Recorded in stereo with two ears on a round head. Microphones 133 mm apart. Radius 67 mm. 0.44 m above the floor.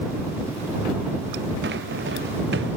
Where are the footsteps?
85° right.